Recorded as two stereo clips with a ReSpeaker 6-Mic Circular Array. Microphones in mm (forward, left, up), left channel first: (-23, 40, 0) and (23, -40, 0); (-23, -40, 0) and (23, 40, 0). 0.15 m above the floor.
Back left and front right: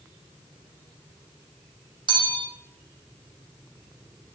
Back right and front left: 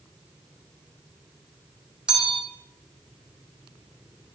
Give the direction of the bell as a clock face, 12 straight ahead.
1 o'clock.